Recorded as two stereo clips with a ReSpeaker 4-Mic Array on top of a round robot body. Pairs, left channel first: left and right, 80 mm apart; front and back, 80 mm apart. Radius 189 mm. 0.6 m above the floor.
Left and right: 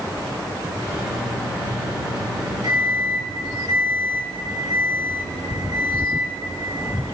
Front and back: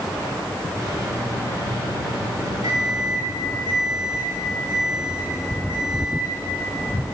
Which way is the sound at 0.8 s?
135° right.